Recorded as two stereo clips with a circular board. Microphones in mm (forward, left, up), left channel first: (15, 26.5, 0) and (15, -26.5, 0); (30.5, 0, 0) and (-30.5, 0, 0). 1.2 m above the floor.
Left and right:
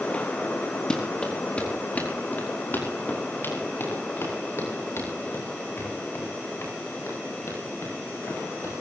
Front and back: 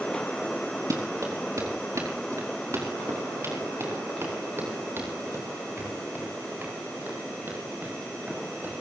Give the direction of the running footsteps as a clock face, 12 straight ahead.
7 o'clock.